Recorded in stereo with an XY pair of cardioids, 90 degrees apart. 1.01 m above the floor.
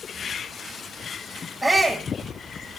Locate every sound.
1.6 s a shout: straight ahead, 5 m